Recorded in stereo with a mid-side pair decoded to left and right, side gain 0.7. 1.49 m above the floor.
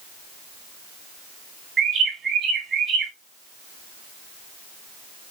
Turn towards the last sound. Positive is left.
turn(degrees=-40)